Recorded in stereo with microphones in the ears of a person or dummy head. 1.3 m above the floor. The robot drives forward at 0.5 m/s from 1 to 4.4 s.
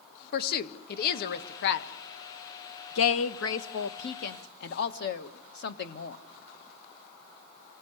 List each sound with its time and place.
0.3 s a woman speaking: 50° left (ahead or behind), 1.7 m; by 6.2 s 60° left (ahead or behind), 1.5 m